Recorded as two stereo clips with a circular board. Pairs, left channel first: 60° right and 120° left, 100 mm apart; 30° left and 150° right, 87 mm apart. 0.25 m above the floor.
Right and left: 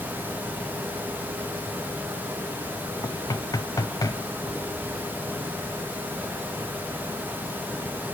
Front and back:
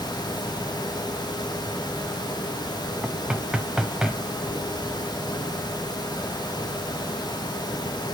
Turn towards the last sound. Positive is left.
turn(degrees=-75)